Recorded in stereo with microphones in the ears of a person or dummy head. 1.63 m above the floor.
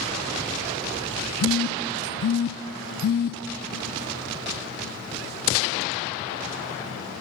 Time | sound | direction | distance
1.4 | a phone buzzing | 55° left (ahead or behind) | 0.5 m